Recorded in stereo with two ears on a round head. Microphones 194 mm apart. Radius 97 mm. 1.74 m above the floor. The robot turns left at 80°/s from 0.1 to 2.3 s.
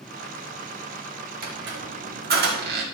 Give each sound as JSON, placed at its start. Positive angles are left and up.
{"t": 1.4, "sound": "a squeak", "side_deg": -40, "distance_m": 2.0}